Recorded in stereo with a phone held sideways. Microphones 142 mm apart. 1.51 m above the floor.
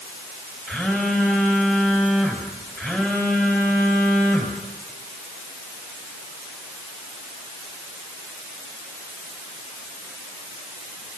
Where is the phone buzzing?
10° left (ahead or behind), 4.5 m.